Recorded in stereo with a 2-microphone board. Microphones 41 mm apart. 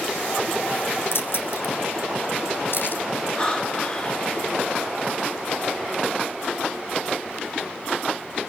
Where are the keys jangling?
70° left (ahead or behind), 3 m; by 3.0 s 55° left (ahead or behind), 3 m.